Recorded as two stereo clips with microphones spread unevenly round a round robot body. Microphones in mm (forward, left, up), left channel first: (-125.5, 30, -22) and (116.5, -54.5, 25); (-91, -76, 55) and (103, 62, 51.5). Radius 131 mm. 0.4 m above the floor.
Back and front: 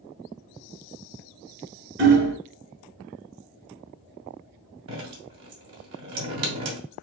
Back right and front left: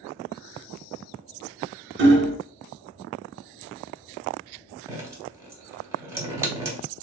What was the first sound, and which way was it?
Hammering, 30° left.